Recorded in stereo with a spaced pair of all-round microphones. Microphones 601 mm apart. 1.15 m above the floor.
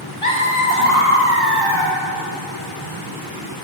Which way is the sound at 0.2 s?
55° left (ahead or behind).